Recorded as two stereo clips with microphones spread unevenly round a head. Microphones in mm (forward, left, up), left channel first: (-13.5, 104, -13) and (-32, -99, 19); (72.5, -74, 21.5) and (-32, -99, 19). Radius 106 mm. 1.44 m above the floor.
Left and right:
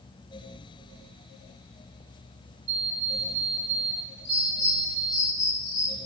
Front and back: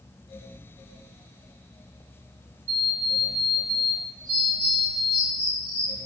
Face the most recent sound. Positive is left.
turn(degrees=75)